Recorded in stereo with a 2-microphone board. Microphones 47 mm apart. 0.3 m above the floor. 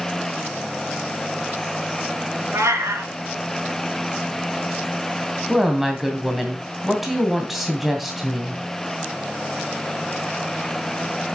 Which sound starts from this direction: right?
A cat meowing, at 2.5 s.